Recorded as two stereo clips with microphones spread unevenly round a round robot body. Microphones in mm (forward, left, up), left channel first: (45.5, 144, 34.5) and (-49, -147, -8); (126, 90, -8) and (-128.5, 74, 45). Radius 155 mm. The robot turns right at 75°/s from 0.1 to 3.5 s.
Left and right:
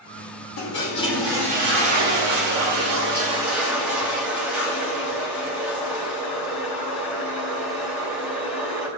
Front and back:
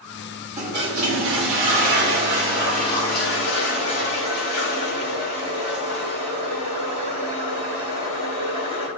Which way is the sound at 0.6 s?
115° left.